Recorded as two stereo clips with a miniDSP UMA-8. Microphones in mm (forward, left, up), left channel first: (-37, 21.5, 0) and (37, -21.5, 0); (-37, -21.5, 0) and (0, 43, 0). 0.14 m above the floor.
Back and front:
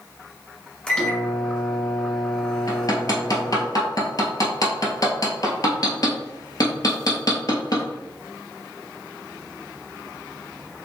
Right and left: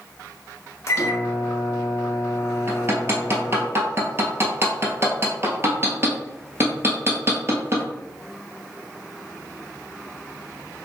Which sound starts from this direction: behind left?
Hammering, at 2.7 s.